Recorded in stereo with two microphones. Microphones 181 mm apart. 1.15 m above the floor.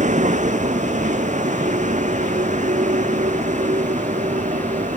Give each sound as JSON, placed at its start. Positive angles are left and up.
{"t": 0.0, "sound": "a vehicle", "side_deg": -40}